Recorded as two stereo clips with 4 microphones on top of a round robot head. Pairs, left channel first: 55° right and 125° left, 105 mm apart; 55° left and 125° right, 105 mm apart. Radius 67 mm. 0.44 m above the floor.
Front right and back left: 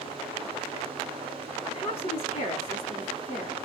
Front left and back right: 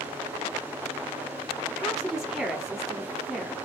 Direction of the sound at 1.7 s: 40° right.